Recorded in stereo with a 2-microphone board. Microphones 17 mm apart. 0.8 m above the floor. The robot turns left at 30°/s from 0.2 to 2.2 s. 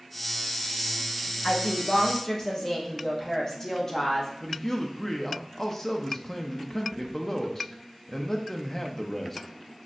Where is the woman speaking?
45° left (ahead or behind), 0.8 m; by 4.3 s 30° left (ahead or behind), 0.8 m.